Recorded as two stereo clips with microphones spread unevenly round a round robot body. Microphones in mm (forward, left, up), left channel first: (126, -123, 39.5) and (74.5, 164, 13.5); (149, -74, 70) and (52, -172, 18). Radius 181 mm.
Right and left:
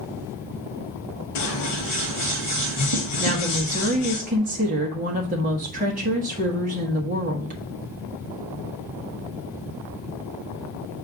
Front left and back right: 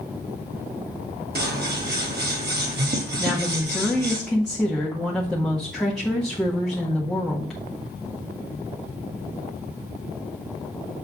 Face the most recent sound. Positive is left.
turn(degrees=150)